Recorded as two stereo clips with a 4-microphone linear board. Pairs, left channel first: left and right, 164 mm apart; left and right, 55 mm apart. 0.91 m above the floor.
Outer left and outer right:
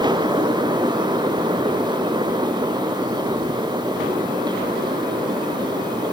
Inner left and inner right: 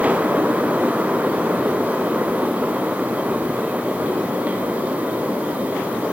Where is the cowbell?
No cowbell in this recording.